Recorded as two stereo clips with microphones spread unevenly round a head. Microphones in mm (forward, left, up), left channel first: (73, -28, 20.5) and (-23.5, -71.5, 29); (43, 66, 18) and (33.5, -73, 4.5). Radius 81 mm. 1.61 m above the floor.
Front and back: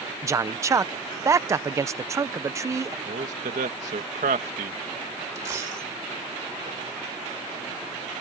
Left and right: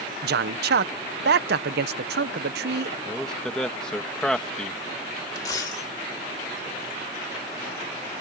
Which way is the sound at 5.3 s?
145° left.